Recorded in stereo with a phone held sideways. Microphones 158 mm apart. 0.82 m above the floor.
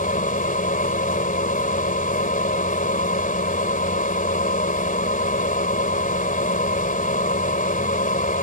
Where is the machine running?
60° left (ahead or behind).